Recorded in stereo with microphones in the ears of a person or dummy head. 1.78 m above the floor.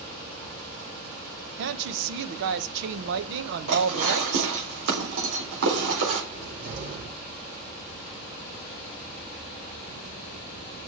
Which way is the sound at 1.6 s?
65° right (ahead or behind).